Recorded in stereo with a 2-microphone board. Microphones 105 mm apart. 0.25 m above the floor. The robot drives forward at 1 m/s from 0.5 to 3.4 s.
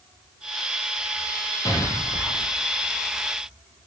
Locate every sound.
1.6 s an explosion: 25° left (ahead or behind), 2.5 m; by 2.6 s 20° left (ahead or behind), 3.5 m